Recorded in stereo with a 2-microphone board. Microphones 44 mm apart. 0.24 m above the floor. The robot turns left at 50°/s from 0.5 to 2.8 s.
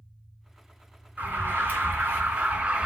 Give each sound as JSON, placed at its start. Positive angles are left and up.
{"t": 1.2, "sound": "an alarm", "azimuth_deg": -60, "distance_m": 3.0}